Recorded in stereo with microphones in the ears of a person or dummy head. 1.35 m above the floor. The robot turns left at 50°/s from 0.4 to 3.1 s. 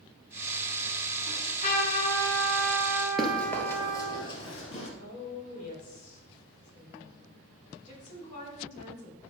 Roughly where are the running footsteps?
Centre.